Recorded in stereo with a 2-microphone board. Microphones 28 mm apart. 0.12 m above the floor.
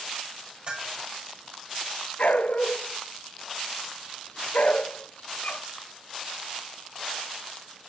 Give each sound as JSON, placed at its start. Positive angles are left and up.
{"t": 0.7, "sound": "a bell", "side_deg": -35, "distance_m": 4.5}
{"t": 2.2, "sound": "a dog barking", "side_deg": 60, "distance_m": 0.5}